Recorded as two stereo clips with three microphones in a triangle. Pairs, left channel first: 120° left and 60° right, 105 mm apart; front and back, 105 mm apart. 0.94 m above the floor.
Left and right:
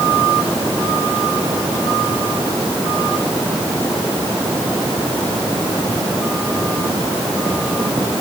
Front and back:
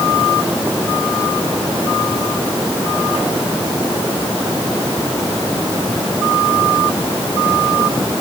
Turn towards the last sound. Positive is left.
No sound to turn to.